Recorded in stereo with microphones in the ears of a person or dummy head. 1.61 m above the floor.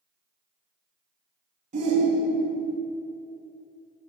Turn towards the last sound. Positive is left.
turn(degrees=-40)  # may be behind; listen again after turning